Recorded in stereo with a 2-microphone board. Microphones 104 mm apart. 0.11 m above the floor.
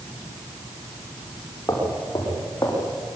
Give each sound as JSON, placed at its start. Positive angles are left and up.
{"t": 1.7, "sound": "footsteps", "side_deg": 35, "distance_m": 9.5}